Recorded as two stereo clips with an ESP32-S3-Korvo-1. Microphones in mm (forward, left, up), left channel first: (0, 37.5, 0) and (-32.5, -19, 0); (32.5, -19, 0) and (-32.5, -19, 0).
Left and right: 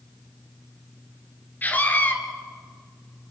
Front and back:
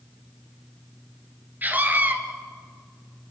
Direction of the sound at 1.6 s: 120° left.